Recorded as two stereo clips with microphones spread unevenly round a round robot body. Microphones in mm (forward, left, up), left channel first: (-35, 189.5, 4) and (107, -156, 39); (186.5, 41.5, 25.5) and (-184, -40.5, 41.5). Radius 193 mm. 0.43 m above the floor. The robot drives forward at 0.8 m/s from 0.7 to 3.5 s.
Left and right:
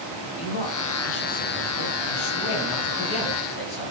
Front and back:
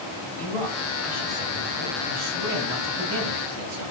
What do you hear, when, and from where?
0.4 s a man speaking: 100° left, 2.5 m; by 3.9 s 140° left, 3.5 m